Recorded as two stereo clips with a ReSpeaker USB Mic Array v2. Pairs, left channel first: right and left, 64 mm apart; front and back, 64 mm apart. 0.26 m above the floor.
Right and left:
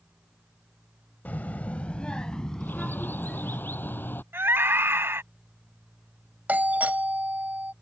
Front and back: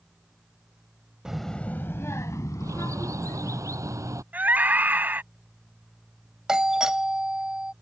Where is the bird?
150° right.